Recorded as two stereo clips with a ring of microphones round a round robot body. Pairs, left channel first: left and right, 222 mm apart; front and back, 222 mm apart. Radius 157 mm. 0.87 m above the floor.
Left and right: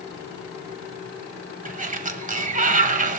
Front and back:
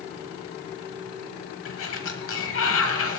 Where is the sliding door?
40° right, 1.4 m.